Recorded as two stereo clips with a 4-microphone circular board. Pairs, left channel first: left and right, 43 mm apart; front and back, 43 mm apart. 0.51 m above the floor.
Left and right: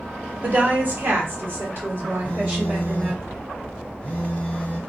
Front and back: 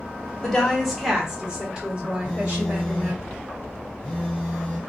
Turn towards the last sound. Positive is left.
turn(degrees=85)